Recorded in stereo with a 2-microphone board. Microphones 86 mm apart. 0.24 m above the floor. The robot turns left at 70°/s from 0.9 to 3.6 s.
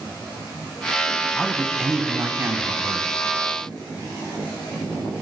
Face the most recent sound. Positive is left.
turn(degrees=-135)